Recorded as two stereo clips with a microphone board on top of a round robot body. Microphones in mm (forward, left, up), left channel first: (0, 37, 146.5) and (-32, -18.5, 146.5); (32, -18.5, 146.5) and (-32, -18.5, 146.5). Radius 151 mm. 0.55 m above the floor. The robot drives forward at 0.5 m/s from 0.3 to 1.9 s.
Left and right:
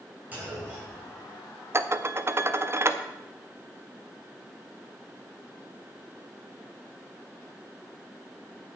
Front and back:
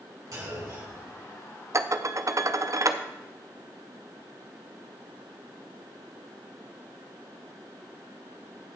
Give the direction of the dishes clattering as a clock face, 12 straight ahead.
5 o'clock.